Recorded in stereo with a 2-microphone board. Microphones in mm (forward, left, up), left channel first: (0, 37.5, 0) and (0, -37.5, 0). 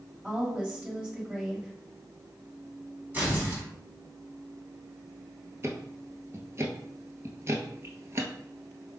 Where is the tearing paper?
25° right (ahead or behind), 1.8 m.